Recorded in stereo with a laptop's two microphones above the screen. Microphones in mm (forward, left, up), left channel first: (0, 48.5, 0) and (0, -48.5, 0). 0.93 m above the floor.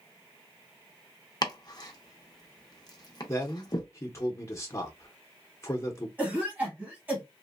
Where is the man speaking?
30° left (ahead or behind), 0.7 m.